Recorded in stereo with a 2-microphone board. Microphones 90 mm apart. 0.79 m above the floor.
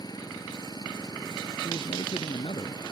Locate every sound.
0.0 s an engine running: 45° left (ahead or behind)
1.6 s a man speaking: 85° left